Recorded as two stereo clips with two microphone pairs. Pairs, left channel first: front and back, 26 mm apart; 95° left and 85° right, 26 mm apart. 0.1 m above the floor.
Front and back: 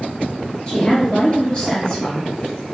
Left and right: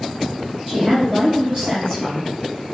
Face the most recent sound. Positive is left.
turn(degrees=-35)